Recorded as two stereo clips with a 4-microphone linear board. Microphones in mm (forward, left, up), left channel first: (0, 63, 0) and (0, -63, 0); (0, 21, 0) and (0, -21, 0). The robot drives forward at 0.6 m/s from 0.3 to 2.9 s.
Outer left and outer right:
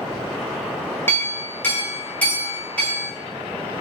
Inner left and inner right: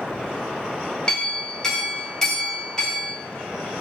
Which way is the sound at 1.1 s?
20° left (ahead or behind).